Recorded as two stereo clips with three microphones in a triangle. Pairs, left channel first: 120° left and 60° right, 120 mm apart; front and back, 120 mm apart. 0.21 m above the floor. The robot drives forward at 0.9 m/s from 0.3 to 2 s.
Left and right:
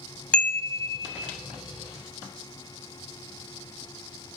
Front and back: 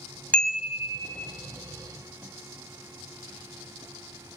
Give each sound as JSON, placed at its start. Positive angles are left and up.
{"t": 0.3, "sound": "a chime", "azimuth_deg": 60, "distance_m": 0.6}